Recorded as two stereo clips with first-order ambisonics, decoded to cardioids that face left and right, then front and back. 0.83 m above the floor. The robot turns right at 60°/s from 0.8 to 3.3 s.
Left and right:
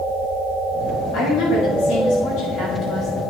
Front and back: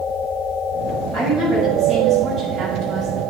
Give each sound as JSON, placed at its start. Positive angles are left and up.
{"t": 1.1, "sound": "a woman speaking", "azimuth_deg": 55, "distance_m": 6.0}